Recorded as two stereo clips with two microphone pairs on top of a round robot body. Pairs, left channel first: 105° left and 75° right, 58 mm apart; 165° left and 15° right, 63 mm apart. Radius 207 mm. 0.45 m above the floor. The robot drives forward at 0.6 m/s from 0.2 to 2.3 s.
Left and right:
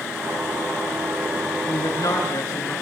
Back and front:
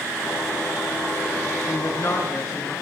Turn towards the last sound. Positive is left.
turn(degrees=125)